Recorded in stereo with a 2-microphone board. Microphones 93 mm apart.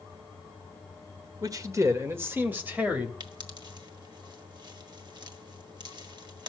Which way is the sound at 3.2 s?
50° right (ahead or behind).